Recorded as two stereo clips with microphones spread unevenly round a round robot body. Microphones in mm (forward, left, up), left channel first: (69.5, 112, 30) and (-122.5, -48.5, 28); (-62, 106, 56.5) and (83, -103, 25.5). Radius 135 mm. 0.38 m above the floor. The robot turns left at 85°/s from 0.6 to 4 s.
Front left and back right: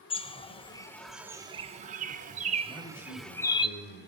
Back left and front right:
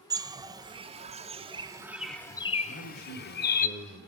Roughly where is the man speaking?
Behind left.